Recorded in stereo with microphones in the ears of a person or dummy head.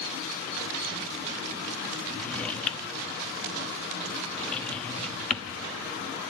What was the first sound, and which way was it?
A drawer, 10° left (ahead or behind).